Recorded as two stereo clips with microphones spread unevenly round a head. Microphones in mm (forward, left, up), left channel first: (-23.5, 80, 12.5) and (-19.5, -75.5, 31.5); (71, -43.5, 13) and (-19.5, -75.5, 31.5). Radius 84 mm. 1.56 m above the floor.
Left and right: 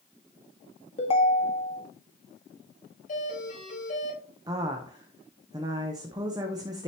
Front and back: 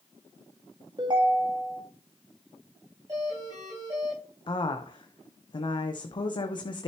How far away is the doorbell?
About 5.5 m.